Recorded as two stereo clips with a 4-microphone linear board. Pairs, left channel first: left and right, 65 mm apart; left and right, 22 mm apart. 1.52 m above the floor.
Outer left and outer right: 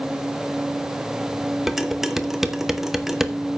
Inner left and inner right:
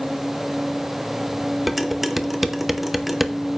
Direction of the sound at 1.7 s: 5° right (ahead or behind).